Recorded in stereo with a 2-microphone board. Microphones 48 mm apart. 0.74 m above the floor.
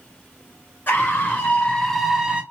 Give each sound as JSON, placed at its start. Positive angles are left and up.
{"t": 0.9, "sound": "a scream", "side_deg": 40, "distance_m": 1.5}